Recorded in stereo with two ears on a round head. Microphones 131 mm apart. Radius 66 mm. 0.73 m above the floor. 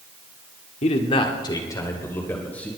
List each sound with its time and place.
0.8 s a man speaking: 45° left (ahead or behind), 1.6 m; by 2.7 s 10° left (ahead or behind), 3 m